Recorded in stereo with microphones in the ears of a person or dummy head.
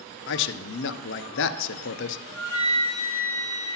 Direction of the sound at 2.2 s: 20° right (ahead or behind).